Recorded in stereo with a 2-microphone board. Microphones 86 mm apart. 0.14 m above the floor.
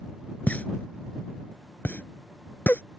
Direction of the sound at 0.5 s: 20° left (ahead or behind).